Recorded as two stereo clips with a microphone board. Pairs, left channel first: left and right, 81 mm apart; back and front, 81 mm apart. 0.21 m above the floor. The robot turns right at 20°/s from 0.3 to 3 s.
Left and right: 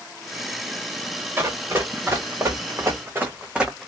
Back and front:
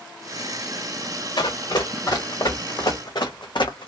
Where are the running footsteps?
155° right, 1.7 m; by 3.9 s 175° left, 0.7 m.